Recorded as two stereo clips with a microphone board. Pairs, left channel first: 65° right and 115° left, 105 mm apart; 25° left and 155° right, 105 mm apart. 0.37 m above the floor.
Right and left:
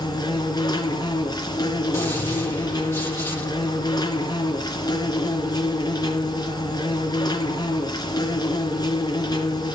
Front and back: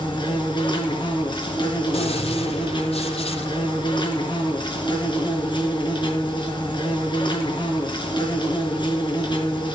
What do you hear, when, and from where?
0.0 s an insect: 20° right, 4.5 m
1.9 s a gunshot: straight ahead, 6.5 m